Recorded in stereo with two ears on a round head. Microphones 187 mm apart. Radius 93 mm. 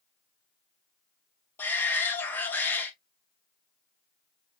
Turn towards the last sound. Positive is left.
turn(degrees=10)  # may be behind; listen again after turning